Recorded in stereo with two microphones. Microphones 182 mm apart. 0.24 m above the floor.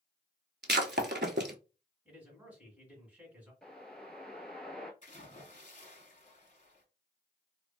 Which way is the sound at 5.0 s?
45° left (ahead or behind).